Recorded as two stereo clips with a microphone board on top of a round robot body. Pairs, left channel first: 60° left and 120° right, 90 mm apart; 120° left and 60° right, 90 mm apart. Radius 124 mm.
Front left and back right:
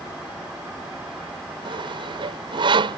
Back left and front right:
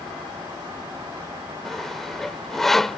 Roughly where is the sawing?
Behind right.